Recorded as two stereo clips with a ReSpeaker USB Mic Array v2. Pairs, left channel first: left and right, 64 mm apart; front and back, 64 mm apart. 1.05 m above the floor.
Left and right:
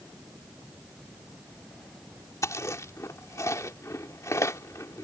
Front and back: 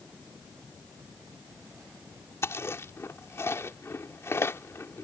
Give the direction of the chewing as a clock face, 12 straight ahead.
10 o'clock.